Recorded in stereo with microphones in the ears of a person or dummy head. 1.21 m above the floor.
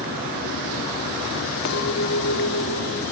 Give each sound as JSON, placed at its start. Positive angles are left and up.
{"t": 1.6, "sound": "a clink", "side_deg": 65, "distance_m": 2.0}